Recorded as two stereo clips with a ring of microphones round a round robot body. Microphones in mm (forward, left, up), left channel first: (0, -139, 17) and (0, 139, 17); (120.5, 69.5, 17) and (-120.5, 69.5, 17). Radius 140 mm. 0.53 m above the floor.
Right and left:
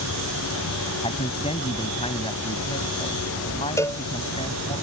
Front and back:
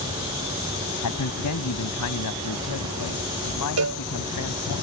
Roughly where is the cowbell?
Behind.